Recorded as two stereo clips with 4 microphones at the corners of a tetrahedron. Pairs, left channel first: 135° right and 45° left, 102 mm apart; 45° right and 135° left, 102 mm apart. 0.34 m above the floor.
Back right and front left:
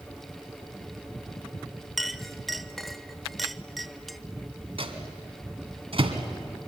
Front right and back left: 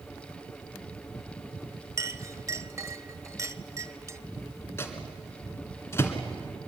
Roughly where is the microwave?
Ahead.